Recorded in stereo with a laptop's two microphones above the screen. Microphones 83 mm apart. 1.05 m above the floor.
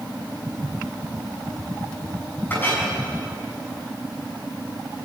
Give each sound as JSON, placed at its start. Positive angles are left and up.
{"t": 2.5, "sound": "a clink", "side_deg": 25, "distance_m": 6.5}